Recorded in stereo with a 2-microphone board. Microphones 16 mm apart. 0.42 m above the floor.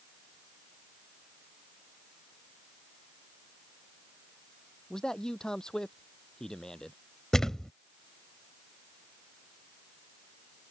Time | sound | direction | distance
4.9 | a man speaking | 40° left (ahead or behind) | ?
7.3 | a thud | 35° left (ahead or behind) | ?